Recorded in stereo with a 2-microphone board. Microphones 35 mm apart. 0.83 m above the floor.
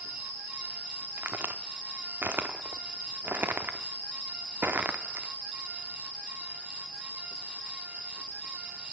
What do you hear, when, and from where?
1.2 s a crack: 70° right (ahead or behind), 0.7 m